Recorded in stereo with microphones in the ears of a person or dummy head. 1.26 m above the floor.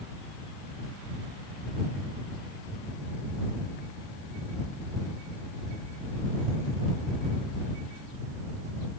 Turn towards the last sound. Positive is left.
No sound to turn to.